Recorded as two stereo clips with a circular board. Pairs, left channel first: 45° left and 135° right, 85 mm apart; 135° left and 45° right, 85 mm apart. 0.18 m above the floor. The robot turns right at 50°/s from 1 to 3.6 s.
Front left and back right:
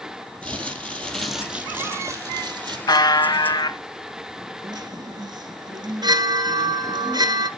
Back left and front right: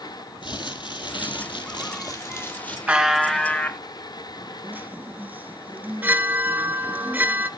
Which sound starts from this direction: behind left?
Crumpling, at 0.4 s.